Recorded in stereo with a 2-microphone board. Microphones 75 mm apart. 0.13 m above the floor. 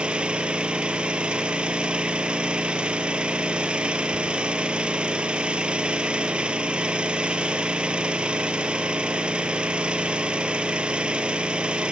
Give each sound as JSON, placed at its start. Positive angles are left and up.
{"t": 0.0, "sound": "an engine running", "side_deg": -15, "distance_m": 1.0}